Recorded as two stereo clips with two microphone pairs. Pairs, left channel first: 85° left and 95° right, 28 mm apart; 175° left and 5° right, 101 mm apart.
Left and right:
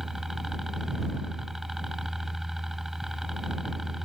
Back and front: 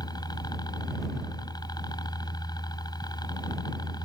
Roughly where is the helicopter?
Behind.